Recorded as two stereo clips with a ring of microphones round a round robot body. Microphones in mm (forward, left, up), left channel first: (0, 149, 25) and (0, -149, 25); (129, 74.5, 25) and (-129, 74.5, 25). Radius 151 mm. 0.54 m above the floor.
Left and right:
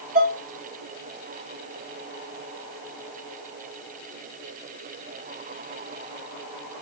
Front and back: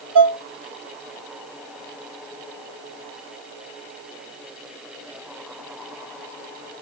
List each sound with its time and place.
0.1 s dishes clattering: 145° right, 3 m